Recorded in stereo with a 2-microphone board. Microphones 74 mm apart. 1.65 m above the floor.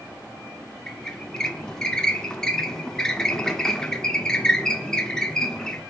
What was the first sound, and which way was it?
A squeak, 10° left (ahead or behind).